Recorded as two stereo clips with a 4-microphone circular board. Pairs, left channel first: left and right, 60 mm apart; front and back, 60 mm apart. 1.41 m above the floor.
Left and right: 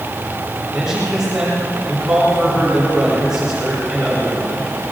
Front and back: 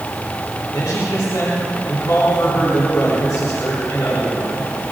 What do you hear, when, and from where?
0.7 s a man speaking: 10° right, 4.5 m